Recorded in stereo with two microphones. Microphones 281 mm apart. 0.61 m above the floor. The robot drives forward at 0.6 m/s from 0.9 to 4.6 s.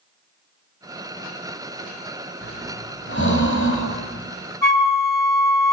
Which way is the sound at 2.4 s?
40° left (ahead or behind).